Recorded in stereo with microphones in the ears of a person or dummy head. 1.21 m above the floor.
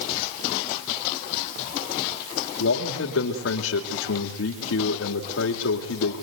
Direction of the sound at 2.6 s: 80° left.